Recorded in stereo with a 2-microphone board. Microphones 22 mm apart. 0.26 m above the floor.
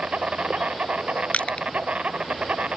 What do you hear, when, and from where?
0.0 s an insect: 70° right (ahead or behind)
1.3 s crushing: 70° left (ahead or behind)